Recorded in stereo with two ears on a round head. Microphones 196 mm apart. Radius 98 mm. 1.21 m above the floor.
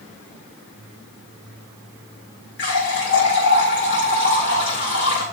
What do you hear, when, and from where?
2.6 s a running tap: 55° left (ahead or behind), 6 m